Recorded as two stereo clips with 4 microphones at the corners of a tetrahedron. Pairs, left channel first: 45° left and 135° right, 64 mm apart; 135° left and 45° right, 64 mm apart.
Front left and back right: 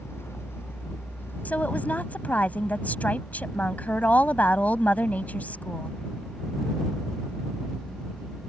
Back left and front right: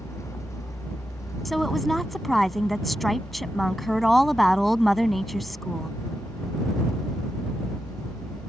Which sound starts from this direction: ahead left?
A woman speaking, at 1.4 s.